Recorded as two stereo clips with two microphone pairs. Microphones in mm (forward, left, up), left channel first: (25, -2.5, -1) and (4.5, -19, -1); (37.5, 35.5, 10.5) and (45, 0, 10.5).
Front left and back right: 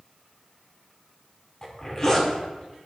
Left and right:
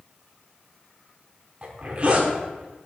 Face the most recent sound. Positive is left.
turn(degrees=-25)